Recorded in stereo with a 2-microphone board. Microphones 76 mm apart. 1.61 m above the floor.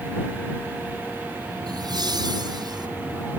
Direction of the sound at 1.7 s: 65° right (ahead or behind).